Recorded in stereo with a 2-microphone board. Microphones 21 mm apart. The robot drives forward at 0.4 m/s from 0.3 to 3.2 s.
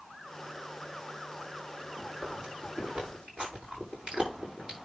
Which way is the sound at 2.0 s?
60° right (ahead or behind).